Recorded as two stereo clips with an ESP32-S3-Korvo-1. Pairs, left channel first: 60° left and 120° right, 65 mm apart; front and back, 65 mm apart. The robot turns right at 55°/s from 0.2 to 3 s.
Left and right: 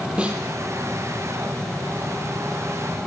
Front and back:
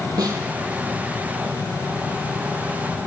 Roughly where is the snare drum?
Behind.